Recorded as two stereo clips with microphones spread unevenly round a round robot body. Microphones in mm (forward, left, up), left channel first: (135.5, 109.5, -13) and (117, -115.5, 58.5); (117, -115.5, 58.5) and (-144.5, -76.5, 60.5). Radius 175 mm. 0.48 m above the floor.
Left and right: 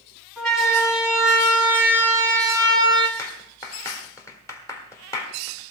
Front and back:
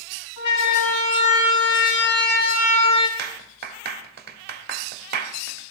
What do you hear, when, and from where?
0.4 s a siren: straight ahead, 4.5 m; by 3.1 s 20° right, 3 m
3.2 s a clap: 135° left, 1.3 m